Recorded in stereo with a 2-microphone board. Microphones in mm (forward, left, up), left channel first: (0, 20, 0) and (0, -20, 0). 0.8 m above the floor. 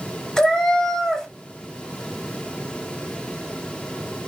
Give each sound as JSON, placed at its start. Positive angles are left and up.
{"t": 0.4, "sound": "a cat meowing", "side_deg": 10, "distance_m": 0.6}